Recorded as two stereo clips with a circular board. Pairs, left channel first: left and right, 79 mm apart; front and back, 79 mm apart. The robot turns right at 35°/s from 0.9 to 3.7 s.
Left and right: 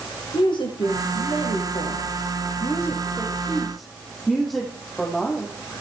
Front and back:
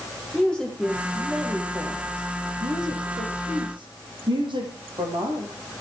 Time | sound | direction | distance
0.3 | a woman speaking | 80° left | 8 m